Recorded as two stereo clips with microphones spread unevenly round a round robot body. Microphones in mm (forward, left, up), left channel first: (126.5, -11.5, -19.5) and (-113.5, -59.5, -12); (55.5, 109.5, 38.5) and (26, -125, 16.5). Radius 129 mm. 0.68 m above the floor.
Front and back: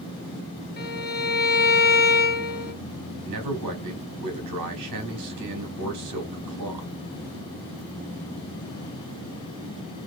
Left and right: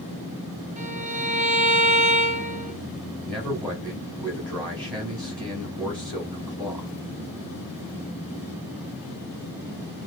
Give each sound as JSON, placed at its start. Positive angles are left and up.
{"t": 0.8, "sound": "a violin", "azimuth_deg": -40, "distance_m": 1.3}
{"t": 3.2, "sound": "a man speaking", "azimuth_deg": 170, "distance_m": 2.5}